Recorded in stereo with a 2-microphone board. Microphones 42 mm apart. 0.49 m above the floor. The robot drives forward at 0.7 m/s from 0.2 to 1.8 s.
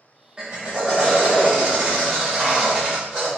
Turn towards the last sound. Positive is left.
turn(degrees=-15)  # may be behind; listen again after turning